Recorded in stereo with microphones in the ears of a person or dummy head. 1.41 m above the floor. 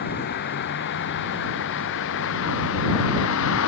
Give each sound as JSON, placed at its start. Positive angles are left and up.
{"t": 0.0, "sound": "a vehicle", "side_deg": 55}